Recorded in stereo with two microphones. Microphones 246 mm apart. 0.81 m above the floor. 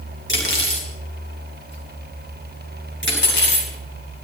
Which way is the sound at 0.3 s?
50° left (ahead or behind).